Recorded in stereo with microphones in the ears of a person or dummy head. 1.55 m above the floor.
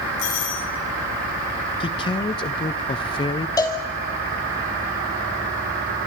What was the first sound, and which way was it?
A doorbell, 75° left (ahead or behind).